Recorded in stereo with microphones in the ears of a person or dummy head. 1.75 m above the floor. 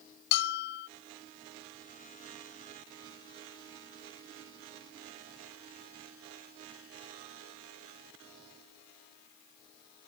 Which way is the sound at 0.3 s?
60° left (ahead or behind).